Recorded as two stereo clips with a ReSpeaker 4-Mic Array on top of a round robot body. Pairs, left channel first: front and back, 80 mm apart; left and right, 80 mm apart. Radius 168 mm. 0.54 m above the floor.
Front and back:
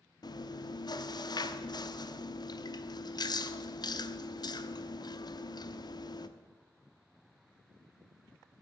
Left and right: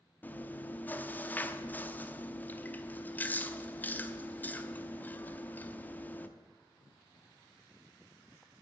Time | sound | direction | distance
0.2 | chewing | 25° left | 0.9 m